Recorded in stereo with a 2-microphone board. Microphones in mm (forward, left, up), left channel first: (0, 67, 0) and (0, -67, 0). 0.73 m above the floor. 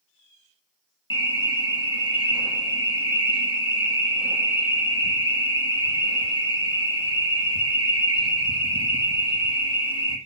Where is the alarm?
35° left (ahead or behind), 1.7 m.